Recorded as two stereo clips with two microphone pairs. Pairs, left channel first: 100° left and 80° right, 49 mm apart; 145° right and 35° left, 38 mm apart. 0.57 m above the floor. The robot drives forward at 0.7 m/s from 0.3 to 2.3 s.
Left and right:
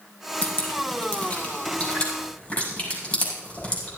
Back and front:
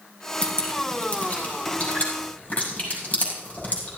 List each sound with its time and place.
0.4 s dripping: 150° left, 5 m; by 3.9 s 155° left, 6 m